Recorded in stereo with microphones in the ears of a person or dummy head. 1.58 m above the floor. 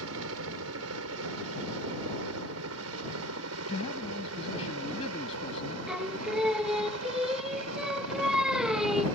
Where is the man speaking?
25° left (ahead or behind).